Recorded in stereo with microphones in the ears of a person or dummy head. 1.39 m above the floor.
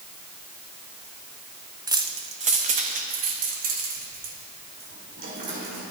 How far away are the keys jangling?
About 0.7 m.